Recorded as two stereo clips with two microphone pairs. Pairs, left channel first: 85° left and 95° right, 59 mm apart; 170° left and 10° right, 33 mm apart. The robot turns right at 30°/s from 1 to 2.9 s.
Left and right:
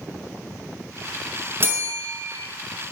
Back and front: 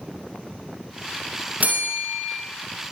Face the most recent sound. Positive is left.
turn(degrees=-10)